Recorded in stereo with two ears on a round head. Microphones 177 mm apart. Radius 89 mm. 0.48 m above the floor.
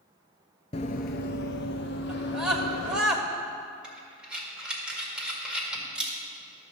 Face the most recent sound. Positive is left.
turn(degrees=-5)  # may be behind; listen again after turning